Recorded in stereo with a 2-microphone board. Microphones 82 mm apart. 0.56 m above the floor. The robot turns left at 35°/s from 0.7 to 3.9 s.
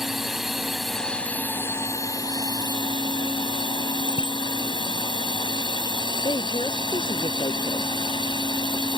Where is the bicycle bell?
85° left.